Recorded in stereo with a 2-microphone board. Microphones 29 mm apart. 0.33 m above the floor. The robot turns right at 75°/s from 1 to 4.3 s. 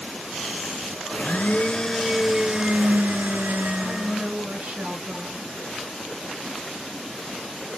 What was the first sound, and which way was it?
A blender, 95° left.